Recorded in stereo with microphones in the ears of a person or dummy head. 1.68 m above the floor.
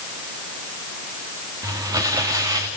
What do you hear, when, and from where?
1.6 s crumpling: 25° right (ahead or behind), 2 m